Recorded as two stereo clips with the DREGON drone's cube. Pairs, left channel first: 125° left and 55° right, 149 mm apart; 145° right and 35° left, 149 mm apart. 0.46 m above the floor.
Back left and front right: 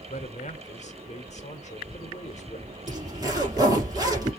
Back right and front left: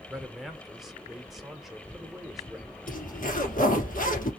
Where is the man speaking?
125° left, 1.1 m.